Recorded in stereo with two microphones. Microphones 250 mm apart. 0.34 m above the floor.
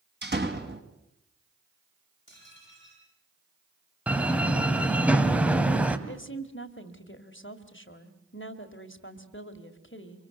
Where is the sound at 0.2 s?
40° right (ahead or behind), 2 m.